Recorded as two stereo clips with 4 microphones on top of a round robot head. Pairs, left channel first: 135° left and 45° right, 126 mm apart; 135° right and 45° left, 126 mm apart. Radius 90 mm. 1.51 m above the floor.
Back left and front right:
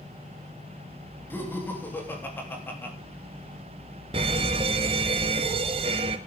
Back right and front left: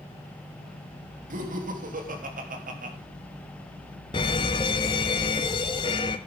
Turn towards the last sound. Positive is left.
turn(degrees=-85)